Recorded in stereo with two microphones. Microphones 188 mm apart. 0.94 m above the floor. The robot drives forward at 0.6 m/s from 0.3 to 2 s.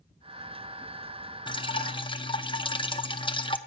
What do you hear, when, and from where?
1.5 s dripping: 25° left (ahead or behind), 0.5 m